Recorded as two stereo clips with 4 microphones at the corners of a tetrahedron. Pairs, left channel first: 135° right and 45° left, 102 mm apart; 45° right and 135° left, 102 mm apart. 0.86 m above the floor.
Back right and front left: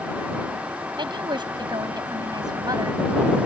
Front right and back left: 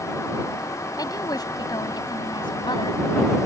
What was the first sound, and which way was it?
A woman speaking, 5° left.